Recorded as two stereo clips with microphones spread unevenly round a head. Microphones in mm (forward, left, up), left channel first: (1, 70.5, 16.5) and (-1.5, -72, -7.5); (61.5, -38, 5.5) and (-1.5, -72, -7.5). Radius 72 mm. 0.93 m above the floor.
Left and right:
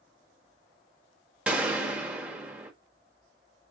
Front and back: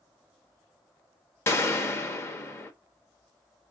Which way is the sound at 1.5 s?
25° right.